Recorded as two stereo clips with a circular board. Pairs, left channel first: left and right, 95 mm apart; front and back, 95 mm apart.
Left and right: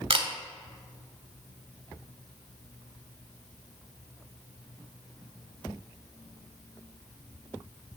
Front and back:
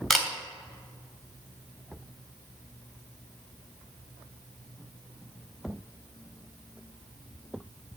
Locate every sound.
0.1 s a camera shutter: 90° right, 1.5 m